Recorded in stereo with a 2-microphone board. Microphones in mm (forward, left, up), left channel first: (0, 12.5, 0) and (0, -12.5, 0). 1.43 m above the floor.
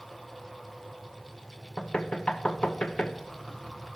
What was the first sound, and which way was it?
Knocking, 50° left (ahead or behind).